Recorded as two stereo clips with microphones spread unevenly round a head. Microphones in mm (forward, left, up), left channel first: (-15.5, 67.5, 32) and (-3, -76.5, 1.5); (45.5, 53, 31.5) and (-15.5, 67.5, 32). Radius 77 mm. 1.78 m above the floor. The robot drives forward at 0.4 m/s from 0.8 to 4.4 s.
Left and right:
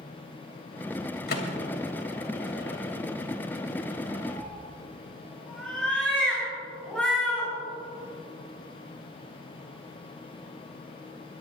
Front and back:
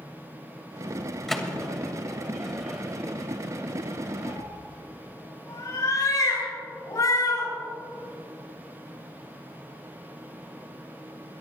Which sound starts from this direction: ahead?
A cat meowing, at 4.2 s.